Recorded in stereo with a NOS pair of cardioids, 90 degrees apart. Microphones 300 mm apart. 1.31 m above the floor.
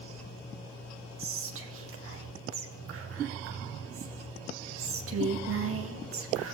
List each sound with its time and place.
1.2 s whispering: 50° right, 0.8 m